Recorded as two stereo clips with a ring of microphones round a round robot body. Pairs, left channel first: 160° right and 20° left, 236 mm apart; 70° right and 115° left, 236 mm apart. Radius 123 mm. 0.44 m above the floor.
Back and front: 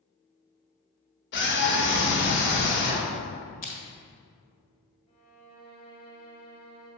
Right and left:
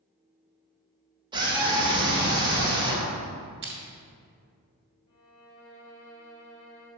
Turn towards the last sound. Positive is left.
turn(degrees=-95)